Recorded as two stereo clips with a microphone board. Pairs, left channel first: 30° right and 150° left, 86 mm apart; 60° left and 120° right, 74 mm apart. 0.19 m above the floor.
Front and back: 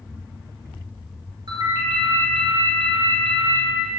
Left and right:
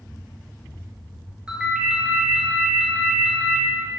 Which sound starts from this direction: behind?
A ringtone, at 1.5 s.